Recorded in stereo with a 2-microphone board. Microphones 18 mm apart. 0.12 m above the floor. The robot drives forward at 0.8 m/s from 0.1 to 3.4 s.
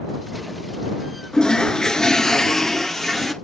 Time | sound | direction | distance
1.3 | a toilet flushing | 45° left (ahead or behind) | 0.8 m